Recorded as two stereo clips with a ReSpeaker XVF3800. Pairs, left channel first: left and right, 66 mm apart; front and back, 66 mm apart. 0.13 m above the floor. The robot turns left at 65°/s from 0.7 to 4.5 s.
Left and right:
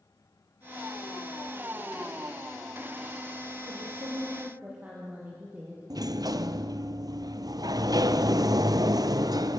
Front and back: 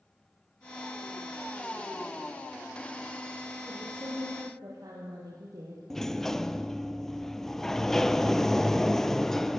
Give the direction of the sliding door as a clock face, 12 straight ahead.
3 o'clock.